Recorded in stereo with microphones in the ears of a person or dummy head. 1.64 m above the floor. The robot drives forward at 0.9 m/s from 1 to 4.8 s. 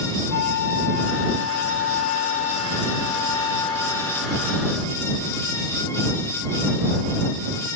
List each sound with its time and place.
0.3 s a flute: 60° left (ahead or behind); by 4.8 s 20° left (ahead or behind)